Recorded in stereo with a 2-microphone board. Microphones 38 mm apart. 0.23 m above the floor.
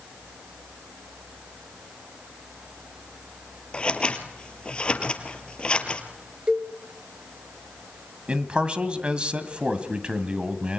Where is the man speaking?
30° right (ahead or behind), 1.8 m.